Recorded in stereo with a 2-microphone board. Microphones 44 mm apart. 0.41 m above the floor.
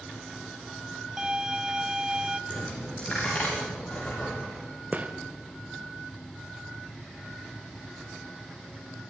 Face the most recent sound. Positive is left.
turn(degrees=-40)  # may be behind; listen again after turning